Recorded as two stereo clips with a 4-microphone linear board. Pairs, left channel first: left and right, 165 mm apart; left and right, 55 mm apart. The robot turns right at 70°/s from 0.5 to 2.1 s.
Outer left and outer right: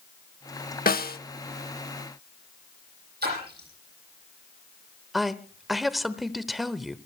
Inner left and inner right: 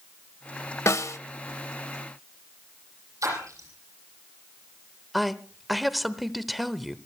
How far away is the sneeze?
I don't hear a sneeze.